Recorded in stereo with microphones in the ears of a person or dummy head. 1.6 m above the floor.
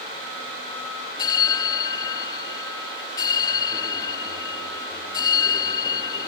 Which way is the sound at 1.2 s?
20° left (ahead or behind).